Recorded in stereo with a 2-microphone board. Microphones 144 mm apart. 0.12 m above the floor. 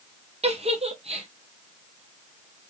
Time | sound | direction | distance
0.4 | a giggle | 50° right (ahead or behind) | 0.8 m